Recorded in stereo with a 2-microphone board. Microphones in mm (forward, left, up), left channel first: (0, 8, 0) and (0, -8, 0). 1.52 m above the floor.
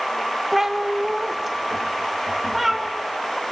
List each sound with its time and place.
0.5 s a cat meowing: 20° right (ahead or behind), 0.8 m; by 2.9 s 5° right (ahead or behind), 2.0 m